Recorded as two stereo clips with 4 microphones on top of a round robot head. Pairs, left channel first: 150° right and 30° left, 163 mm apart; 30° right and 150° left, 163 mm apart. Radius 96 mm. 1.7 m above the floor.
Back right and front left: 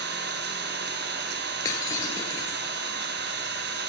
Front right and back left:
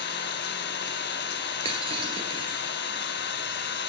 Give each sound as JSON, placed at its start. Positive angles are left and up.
{"t": 0.0, "sound": "an engine running", "azimuth_deg": 0, "distance_m": 1.1}
{"t": 1.6, "sound": "breaking glass", "azimuth_deg": 160, "distance_m": 1.8}